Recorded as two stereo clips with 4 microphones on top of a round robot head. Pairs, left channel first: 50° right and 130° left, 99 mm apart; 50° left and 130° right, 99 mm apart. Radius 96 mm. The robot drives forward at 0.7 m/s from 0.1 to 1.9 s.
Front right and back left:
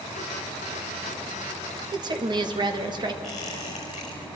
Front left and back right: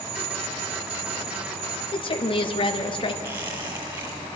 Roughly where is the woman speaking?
Left.